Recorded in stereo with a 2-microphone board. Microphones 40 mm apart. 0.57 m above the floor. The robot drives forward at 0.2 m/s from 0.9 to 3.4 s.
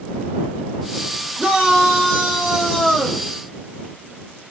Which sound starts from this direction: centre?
A shout, at 1.4 s.